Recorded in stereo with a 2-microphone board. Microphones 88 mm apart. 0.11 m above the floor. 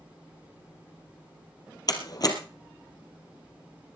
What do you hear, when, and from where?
1.9 s a door slam: 50° left (ahead or behind), 2.5 m